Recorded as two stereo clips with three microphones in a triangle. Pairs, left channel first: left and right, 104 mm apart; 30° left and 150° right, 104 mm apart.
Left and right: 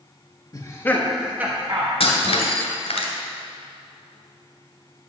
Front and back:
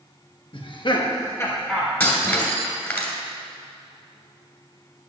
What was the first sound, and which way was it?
Laughter, 45° left.